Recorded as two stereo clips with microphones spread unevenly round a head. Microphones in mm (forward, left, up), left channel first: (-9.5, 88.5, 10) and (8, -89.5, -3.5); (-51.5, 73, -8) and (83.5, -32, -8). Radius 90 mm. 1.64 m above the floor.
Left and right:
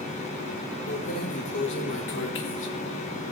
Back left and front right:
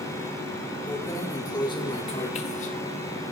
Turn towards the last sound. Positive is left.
turn(degrees=115)